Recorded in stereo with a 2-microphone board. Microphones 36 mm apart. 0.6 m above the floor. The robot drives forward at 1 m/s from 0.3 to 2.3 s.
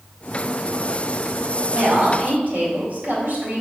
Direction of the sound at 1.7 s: 60° right (ahead or behind).